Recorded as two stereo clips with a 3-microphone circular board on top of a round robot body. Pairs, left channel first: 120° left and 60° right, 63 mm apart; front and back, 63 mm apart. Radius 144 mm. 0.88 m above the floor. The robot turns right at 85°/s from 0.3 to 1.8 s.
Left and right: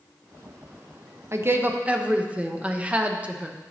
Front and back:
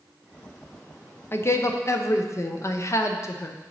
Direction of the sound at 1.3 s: 40° right.